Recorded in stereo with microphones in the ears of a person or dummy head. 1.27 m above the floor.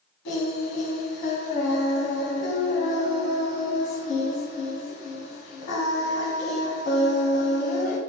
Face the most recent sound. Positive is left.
turn(degrees=60)  # may be behind; listen again after turning